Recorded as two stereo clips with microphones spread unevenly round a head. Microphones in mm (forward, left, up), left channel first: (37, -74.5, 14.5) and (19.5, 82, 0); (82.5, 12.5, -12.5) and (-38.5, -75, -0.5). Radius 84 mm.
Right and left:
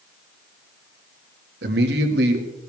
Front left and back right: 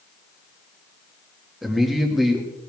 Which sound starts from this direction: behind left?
A man speaking, at 1.6 s.